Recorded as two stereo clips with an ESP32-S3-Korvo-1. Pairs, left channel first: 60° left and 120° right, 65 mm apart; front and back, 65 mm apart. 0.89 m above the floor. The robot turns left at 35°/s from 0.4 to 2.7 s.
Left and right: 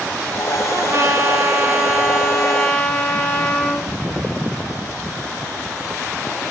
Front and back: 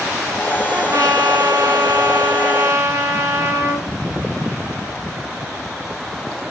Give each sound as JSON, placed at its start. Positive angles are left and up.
{"t": 0.7, "sound": "a trumpet", "azimuth_deg": -145, "distance_m": 3.0}